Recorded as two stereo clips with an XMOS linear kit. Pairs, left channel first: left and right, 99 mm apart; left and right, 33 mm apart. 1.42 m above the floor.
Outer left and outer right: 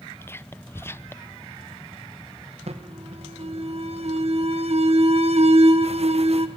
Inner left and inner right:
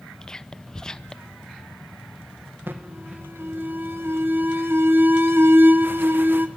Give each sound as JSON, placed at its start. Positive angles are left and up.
{"t": 0.2, "sound": "whispering", "side_deg": 20, "distance_m": 0.6}
{"t": 2.7, "sound": "an alarm", "side_deg": -75, "distance_m": 1.3}